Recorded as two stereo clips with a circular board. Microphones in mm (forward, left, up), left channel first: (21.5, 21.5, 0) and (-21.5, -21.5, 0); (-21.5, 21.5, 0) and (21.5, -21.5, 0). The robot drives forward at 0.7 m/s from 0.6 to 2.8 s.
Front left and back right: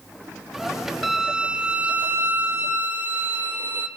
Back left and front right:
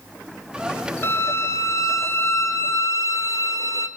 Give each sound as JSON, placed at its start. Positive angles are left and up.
{"t": 1.0, "sound": "a violin", "azimuth_deg": 140, "distance_m": 0.8}